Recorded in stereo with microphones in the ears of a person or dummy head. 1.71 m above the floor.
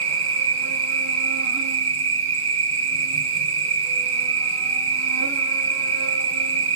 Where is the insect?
80° right, 2.5 m.